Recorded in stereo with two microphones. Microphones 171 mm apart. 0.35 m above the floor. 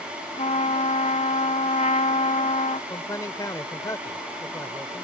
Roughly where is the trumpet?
Left.